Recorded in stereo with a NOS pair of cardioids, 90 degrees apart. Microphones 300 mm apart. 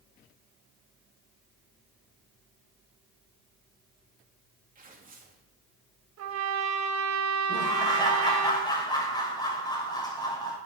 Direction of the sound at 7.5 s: 15° left.